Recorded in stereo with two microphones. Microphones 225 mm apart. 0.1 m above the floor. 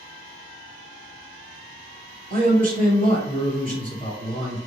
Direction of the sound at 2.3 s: 35° right (ahead or behind).